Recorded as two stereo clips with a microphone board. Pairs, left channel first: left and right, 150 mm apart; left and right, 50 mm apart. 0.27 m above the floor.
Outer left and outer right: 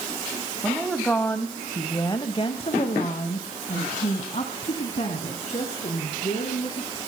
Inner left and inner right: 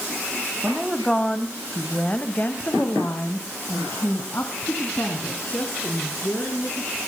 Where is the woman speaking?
Centre (ahead or behind), 1.8 m; by 7.0 s 45° left (ahead or behind), 4 m.